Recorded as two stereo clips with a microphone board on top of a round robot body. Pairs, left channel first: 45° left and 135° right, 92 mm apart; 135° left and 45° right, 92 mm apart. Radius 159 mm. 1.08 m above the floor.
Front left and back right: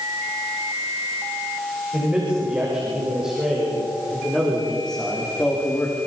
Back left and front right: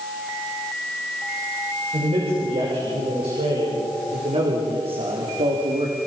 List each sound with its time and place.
1.9 s a man speaking: 60° right, 7 m; by 6.0 s 20° right, 3 m